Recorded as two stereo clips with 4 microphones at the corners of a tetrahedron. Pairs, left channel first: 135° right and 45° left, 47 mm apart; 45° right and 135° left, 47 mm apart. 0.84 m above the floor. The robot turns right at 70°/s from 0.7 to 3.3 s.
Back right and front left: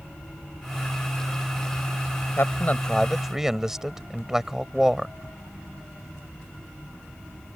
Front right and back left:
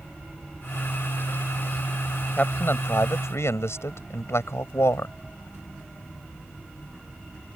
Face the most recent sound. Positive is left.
turn(degrees=-35)